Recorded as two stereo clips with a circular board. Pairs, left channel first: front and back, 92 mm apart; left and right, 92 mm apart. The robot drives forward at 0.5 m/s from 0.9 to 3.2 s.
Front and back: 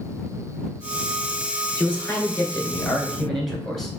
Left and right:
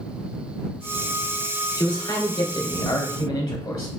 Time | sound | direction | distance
1.8 | a man speaking | 60° left | 2.0 m